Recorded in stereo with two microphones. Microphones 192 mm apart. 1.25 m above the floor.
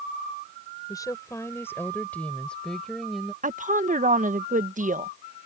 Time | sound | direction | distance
0.9 | a woman speaking | 15° left (ahead or behind) | ?
3.4 | a woman speaking | 40° right (ahead or behind) | ?